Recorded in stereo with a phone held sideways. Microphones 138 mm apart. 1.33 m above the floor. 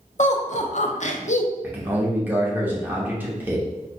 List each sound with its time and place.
0.2 s laughter: 60° left (ahead or behind), 0.5 m
1.6 s a man speaking: 15° right (ahead or behind), 0.8 m